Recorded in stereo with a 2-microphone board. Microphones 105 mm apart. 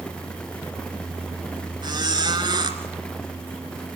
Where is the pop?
No pop in this recording.